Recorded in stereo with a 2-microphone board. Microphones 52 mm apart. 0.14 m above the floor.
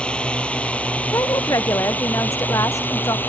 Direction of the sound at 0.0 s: 20° left (ahead or behind).